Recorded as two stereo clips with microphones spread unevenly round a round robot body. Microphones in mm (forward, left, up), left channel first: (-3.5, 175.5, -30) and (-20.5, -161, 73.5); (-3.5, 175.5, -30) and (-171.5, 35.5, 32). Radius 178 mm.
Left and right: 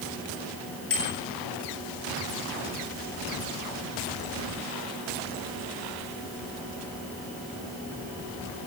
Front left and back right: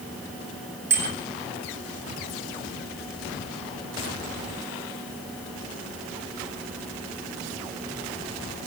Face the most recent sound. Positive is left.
turn(degrees=140)